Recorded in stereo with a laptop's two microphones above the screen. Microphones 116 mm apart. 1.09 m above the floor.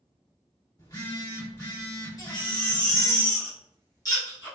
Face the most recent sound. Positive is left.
turn(degrees=35)  # may be behind; listen again after turning